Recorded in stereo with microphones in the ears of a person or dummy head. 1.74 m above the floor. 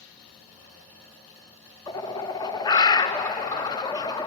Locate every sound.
1.9 s a bird: 20° left (ahead or behind), 0.8 m